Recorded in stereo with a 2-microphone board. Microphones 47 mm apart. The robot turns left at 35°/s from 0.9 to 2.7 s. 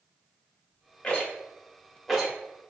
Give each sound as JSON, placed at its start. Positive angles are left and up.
{"t": 1.0, "sound": "a rattle", "side_deg": 30, "distance_m": 0.9}